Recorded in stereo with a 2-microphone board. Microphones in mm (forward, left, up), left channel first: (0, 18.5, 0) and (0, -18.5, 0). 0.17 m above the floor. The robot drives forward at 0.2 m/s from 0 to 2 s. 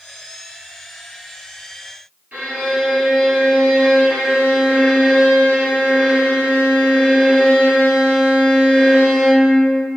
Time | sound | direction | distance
2.3 | a violin | 35° right (ahead or behind) | 1.5 m